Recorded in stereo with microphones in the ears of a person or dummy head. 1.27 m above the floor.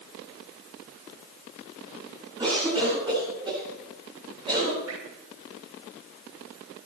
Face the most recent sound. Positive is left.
turn(degrees=-85)